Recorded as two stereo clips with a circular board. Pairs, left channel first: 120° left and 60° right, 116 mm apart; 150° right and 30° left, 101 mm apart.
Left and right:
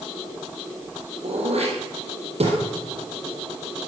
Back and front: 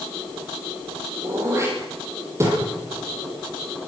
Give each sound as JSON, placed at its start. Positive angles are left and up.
{"t": 1.2, "sound": "throat clearing", "azimuth_deg": -30, "distance_m": 9.0}